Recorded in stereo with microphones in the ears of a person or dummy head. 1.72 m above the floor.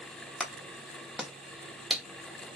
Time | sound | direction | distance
0.4 | a clap | 5° right (ahead or behind) | 1.0 m